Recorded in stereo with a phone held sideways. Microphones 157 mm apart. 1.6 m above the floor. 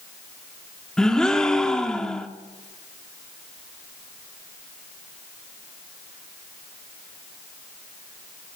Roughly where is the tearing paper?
I don't hear tearing paper.